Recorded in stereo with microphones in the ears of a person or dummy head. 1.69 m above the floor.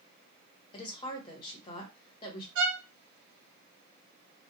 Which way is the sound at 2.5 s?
70° right (ahead or behind).